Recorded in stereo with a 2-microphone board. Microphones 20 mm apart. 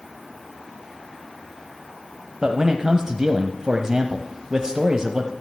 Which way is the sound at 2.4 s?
30° right (ahead or behind).